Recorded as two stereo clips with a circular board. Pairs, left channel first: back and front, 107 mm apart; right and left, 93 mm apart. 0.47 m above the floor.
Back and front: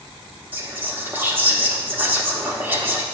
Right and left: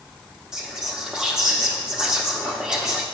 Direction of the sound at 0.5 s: 20° left.